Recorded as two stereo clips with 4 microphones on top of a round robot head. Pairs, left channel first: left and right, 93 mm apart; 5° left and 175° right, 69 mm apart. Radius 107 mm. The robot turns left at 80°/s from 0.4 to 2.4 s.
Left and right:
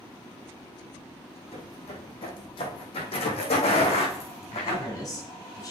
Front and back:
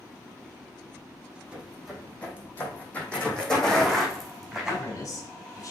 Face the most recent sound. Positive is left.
turn(degrees=40)